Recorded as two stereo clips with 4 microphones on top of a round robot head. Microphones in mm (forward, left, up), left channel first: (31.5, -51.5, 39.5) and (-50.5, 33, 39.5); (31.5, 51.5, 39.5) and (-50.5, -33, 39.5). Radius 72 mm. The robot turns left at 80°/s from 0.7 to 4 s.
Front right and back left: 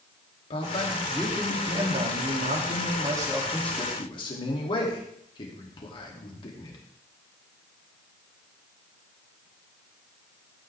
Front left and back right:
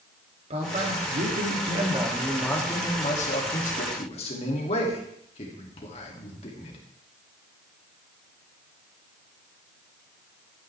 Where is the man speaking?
90° right, 3 m; by 6.8 s 5° left, 3 m.